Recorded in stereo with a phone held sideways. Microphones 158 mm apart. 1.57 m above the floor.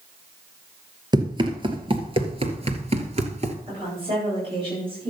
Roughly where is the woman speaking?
Right.